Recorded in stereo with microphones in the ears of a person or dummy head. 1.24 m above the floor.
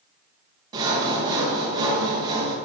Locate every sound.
0.7 s sawing: 15° right (ahead or behind), 1.0 m